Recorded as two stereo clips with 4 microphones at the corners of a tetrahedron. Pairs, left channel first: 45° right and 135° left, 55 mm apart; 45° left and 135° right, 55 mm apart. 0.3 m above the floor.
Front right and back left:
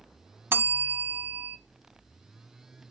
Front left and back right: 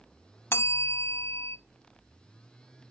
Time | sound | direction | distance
0.5 | a bell | 90° left | 0.5 m